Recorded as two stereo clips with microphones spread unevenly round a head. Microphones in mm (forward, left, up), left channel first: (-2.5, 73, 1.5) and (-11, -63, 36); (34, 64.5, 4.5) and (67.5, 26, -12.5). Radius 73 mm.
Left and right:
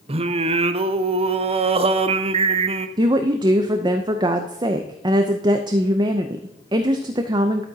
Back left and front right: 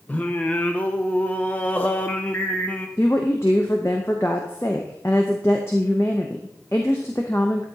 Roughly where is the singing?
Behind right.